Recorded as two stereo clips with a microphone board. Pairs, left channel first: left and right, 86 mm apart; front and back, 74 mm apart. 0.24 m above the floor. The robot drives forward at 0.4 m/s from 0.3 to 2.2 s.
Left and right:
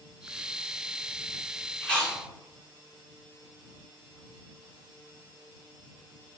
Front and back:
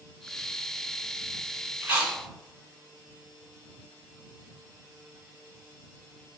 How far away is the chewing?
About 1.3 m.